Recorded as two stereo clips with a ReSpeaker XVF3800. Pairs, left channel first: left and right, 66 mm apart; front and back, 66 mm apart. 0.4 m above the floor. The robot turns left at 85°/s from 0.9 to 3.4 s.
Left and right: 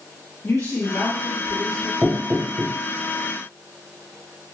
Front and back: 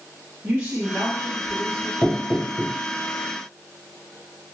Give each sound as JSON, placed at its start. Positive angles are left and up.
{"t": 0.4, "sound": "a woman speaking", "azimuth_deg": 125, "distance_m": 2.5}
{"t": 2.0, "sound": "knocking", "azimuth_deg": -10, "distance_m": 2.0}